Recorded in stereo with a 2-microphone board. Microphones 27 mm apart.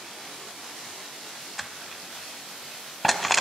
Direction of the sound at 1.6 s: 5° left (ahead or behind).